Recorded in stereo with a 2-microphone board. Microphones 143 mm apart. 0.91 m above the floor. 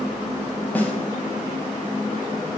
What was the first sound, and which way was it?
A snare drum, 10° left (ahead or behind).